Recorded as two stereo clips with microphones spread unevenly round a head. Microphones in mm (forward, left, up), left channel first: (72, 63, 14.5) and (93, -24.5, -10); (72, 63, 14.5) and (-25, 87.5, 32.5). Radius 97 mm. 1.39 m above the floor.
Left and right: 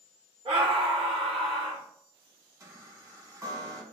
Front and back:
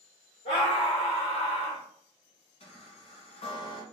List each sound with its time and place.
0.5 s a scream: 50° right, 1.9 m
2.6 s a chime: 30° right, 1.8 m